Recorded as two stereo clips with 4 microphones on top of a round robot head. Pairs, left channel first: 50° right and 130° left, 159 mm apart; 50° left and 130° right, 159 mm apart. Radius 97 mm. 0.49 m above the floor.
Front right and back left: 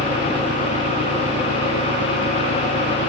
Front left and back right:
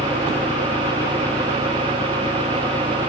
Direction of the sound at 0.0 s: 130° left.